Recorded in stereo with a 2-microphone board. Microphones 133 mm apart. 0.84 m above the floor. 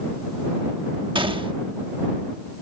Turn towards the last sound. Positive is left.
turn(degrees=-35)  # may be behind; listen again after turning